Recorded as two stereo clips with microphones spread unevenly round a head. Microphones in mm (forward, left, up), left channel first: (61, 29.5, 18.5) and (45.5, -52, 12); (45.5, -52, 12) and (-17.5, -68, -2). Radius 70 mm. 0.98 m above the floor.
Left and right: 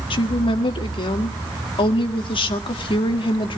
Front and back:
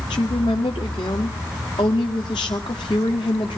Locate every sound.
0.1 s a woman speaking: 60° left, 1.6 m